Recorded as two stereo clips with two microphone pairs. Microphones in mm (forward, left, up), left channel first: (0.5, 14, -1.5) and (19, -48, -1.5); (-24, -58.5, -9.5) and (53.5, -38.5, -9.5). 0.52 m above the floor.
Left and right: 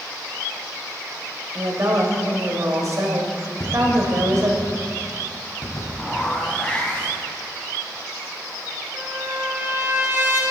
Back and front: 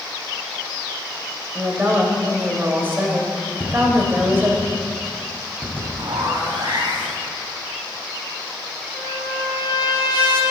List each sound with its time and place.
1.6 s a woman speaking: 45° right, 3 m
3.6 s tapping: 75° left, 4 m
6.0 s a zipper: 30° left, 3 m
8.9 s a trumpet: 125° right, 4 m